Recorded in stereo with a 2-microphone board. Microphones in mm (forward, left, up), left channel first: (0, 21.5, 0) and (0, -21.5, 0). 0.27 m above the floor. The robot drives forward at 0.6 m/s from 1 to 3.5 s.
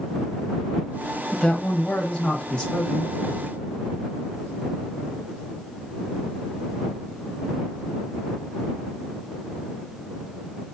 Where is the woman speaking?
15° left (ahead or behind), 1.1 m.